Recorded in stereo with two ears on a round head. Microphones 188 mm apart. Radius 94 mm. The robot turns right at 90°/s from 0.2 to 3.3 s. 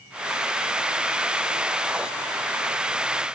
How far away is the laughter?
No laughter in this recording.